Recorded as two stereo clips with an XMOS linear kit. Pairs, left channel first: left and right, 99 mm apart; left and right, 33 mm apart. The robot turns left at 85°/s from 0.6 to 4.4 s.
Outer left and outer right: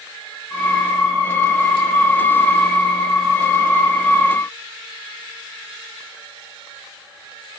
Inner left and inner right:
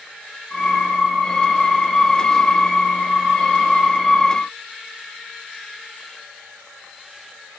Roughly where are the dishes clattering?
No dishes clattering in this recording.